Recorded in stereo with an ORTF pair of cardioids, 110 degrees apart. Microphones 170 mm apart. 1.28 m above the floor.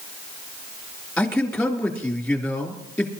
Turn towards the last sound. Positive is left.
turn(degrees=10)